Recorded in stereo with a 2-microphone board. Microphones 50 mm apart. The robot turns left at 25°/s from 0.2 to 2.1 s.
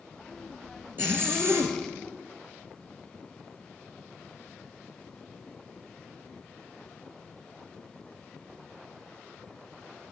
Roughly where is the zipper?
Right.